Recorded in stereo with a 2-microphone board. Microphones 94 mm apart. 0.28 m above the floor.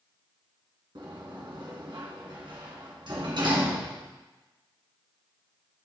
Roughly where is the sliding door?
Right.